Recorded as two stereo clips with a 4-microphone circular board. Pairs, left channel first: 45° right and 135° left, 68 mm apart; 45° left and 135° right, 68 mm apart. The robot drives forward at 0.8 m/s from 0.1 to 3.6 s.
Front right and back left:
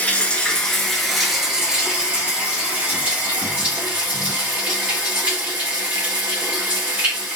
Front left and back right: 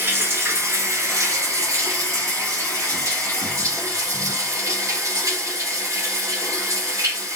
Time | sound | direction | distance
0.0 | running water | 105° right | 1.5 m